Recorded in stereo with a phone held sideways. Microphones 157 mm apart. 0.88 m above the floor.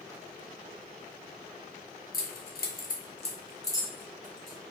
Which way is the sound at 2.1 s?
70° left (ahead or behind).